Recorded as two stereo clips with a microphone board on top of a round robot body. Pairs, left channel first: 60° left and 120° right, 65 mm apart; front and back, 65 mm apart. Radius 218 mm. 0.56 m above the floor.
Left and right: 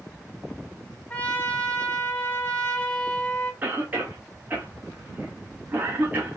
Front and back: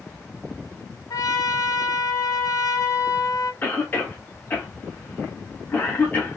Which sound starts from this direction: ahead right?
A cough, at 3.6 s.